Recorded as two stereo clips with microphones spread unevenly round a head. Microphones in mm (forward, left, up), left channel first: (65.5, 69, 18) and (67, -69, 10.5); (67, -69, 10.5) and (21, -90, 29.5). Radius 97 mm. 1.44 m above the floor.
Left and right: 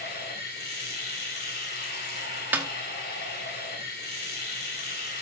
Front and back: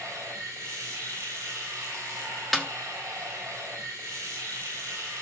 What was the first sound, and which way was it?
Running water, 125° left.